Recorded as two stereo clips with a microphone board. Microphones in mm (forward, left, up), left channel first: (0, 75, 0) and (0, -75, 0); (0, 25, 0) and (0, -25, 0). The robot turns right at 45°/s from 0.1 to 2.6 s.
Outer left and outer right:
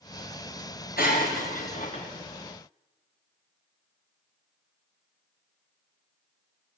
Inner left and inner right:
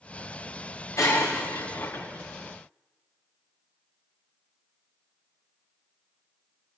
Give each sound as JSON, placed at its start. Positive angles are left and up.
{"t": 1.0, "sound": "breaking glass", "azimuth_deg": 85, "distance_m": 5.5}